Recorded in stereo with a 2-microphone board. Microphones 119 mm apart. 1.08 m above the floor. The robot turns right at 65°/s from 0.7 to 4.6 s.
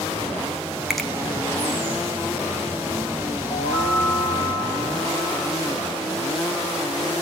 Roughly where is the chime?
Left.